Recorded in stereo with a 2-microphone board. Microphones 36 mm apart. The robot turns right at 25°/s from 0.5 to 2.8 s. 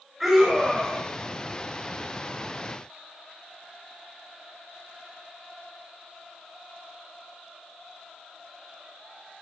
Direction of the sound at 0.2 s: 5° right (ahead or behind).